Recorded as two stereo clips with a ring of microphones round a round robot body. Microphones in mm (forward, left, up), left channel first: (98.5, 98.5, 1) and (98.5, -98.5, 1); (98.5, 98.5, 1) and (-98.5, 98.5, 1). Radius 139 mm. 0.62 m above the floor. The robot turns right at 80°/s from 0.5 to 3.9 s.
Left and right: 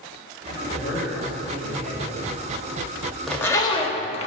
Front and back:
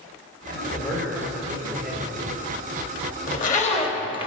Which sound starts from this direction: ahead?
A zipper, at 3.3 s.